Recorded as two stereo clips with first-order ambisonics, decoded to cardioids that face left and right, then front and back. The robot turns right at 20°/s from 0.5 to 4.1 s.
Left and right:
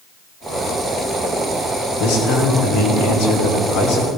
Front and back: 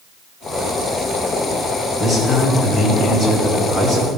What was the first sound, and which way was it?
A man speaking, 85° left.